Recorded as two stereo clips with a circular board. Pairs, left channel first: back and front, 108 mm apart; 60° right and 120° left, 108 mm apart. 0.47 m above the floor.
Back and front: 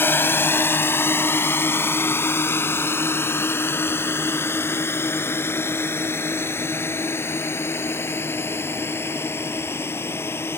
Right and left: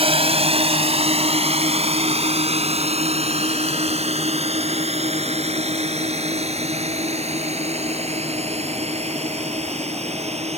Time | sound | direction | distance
0.0 | a drone | 110° left | ?